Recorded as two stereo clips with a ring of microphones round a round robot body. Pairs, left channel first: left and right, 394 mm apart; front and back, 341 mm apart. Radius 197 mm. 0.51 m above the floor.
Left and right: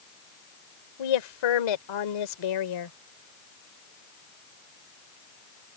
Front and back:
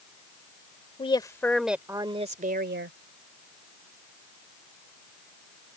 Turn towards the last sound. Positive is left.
turn(degrees=130)